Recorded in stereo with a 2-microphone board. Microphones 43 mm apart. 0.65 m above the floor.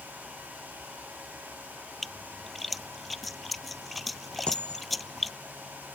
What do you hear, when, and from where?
2.0 s a splash: centre (ahead or behind)
4.5 s a dropped coin: 25° left (ahead or behind)